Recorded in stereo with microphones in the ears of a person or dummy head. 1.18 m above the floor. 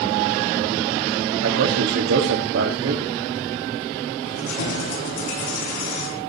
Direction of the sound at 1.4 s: 75° right (ahead or behind).